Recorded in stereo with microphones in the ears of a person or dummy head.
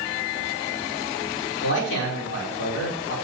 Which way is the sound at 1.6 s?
75° left (ahead or behind).